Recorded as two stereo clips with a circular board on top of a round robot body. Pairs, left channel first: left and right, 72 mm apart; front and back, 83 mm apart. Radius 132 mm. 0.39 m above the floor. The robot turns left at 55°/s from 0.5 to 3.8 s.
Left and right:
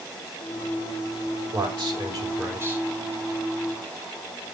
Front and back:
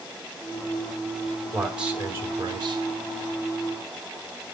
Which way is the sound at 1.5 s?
90° right.